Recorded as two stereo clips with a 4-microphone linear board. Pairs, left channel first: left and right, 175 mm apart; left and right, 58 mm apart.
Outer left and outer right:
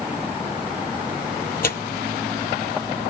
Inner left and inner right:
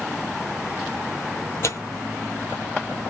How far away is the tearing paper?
About 0.6 m.